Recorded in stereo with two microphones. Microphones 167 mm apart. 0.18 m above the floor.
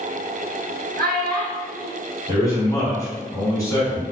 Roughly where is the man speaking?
Left.